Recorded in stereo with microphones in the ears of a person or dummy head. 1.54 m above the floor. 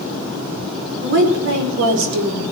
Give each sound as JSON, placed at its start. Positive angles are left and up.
{"t": 1.0, "sound": "a woman speaking", "side_deg": -80, "distance_m": 4.5}